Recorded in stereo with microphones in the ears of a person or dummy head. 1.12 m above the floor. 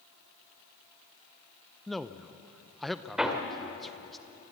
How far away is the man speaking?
About 0.6 m.